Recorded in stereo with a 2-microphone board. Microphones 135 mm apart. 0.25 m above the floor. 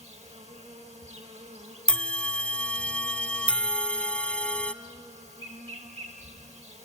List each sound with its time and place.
0.0 s an insect: 55° right (ahead or behind), 2.5 m
1.9 s a bell: 10° left (ahead or behind), 0.6 m